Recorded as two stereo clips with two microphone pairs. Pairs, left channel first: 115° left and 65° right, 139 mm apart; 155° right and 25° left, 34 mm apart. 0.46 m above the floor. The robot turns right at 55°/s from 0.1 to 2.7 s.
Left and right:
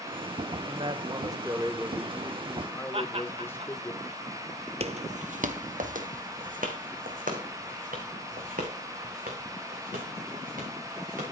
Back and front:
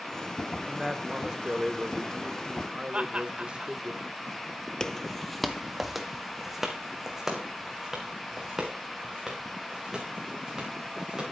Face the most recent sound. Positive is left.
turn(degrees=-55)